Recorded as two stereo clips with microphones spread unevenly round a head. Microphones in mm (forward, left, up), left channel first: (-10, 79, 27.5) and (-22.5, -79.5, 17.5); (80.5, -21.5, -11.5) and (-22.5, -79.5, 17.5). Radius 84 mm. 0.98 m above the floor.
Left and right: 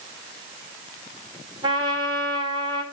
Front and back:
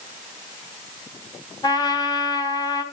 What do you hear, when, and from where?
1.6 s a trumpet: 30° right, 2.5 m